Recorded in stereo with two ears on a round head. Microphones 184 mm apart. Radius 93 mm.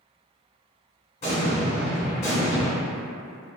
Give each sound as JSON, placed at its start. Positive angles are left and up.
{"t": 1.2, "sound": "an explosion", "side_deg": 35, "distance_m": 1.1}